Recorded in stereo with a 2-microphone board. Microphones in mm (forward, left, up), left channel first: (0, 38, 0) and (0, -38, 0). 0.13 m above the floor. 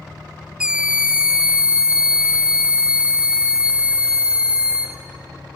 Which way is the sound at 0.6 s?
15° right (ahead or behind).